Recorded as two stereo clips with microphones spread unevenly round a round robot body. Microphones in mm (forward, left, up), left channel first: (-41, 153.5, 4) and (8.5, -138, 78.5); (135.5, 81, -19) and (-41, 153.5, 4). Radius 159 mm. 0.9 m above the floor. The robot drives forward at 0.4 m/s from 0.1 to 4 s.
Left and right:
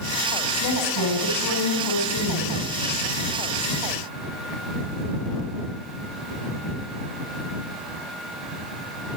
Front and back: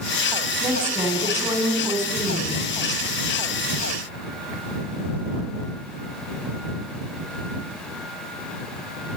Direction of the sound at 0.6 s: 80° left.